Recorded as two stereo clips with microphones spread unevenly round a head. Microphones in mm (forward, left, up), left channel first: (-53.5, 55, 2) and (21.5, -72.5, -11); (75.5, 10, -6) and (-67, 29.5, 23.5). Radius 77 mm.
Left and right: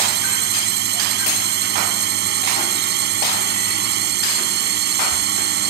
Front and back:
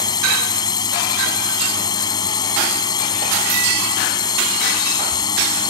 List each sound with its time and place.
0.0 s a drone: 75° right